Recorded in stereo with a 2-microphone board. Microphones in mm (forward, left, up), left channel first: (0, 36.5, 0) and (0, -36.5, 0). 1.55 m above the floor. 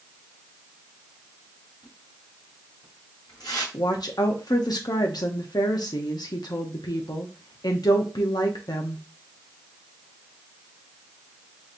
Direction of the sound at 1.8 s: 70° left (ahead or behind).